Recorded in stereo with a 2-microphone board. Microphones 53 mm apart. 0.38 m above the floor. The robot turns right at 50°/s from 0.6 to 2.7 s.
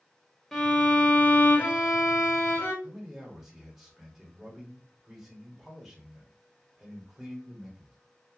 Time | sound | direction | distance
0.5 | a violin | 10° left | 1.0 m
2.8 | a man speaking | 5° right (ahead or behind) | 1.2 m